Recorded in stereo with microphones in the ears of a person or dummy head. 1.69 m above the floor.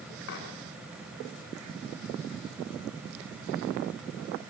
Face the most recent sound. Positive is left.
turn(degrees=60)  # may be behind; listen again after turning